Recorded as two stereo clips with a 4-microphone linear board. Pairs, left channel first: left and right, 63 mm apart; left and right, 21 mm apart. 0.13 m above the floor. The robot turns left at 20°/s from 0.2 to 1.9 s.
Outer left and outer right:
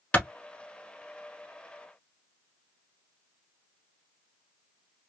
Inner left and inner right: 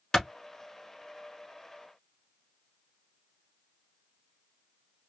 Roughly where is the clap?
Centre.